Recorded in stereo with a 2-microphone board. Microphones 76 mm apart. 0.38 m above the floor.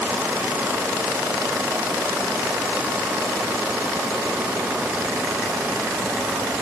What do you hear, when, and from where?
Only background noise.